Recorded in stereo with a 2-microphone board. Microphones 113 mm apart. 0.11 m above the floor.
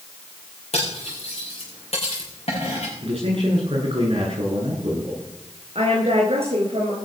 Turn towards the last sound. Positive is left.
turn(degrees=-60)  # may be behind; listen again after turning